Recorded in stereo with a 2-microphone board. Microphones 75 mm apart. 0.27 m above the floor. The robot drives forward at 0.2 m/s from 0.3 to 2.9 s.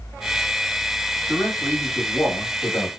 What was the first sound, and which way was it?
A man speaking, 25° left (ahead or behind).